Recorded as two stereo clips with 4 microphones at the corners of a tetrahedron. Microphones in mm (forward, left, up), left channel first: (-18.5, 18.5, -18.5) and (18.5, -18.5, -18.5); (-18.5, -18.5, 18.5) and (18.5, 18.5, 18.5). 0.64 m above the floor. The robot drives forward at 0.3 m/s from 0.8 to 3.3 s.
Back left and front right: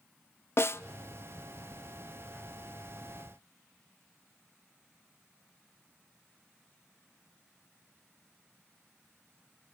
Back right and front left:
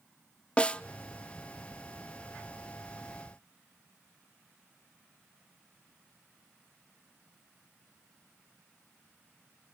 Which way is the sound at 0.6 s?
160° left.